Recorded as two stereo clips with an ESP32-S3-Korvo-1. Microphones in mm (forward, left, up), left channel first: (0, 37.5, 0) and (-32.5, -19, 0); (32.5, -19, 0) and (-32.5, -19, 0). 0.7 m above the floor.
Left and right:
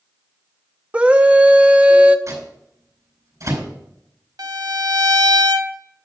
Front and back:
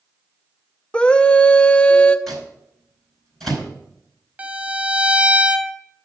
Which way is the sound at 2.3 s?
85° right.